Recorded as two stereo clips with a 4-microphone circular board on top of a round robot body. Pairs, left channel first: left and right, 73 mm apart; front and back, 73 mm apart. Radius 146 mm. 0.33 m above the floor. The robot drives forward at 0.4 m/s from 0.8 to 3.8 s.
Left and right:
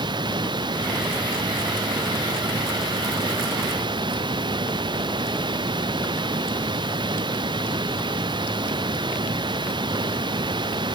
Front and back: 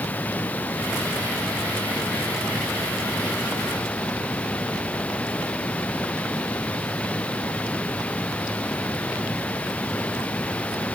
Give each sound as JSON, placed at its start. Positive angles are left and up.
{"t": 0.0, "sound": "running water", "azimuth_deg": -70}